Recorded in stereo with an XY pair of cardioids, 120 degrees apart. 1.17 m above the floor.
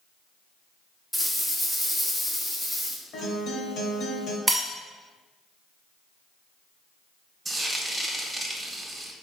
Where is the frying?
15° right, 0.6 m.